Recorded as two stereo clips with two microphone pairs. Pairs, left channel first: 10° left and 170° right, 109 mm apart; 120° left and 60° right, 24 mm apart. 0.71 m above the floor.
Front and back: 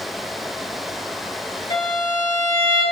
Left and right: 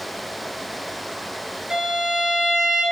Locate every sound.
1.7 s a violin: 20° right, 2.5 m